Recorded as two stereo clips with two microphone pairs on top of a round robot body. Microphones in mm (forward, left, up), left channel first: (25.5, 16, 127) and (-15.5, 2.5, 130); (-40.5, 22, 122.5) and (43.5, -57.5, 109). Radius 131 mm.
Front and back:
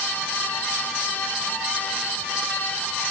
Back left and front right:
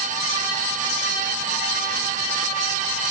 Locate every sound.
Only background noise.